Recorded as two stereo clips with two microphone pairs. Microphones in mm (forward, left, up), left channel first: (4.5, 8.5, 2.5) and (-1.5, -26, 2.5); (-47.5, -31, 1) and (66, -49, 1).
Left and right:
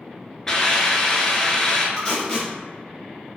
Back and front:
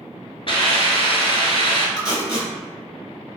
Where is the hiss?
160° left, 0.8 m.